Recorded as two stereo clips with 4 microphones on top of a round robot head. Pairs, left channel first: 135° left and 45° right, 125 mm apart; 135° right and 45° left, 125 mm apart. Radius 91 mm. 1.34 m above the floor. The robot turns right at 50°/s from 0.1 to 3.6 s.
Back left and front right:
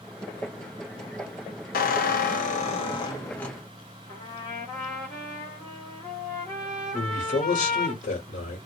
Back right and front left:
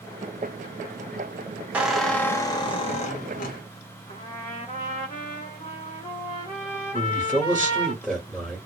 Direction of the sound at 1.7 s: 125° left.